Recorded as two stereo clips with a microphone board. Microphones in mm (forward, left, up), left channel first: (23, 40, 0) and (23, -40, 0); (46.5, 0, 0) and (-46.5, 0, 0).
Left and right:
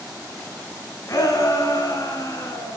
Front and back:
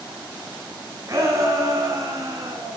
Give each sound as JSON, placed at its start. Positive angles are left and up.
{"t": 1.1, "sound": "a shout", "azimuth_deg": 130, "distance_m": 3.5}